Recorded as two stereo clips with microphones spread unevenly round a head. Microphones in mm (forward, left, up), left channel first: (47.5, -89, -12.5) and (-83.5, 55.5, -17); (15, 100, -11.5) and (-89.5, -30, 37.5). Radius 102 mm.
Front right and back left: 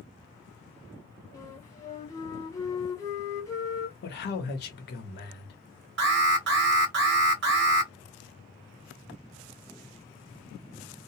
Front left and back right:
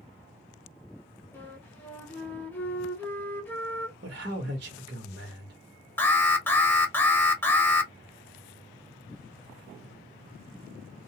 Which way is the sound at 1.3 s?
15° left.